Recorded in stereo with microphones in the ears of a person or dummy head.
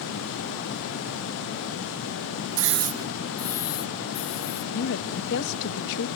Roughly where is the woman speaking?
Left.